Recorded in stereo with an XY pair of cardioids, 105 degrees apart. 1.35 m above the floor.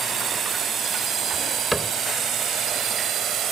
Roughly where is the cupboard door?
Ahead.